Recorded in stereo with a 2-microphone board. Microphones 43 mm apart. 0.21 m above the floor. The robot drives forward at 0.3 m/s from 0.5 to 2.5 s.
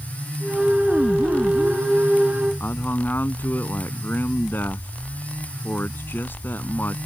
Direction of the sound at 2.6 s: 50° left (ahead or behind).